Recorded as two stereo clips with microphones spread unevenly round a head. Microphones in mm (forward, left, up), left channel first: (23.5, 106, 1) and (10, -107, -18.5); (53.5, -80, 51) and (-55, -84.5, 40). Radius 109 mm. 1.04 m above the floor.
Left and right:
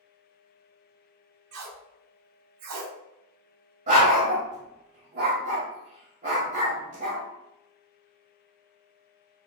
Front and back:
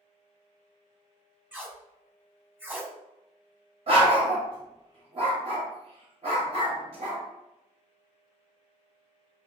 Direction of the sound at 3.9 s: 150° right.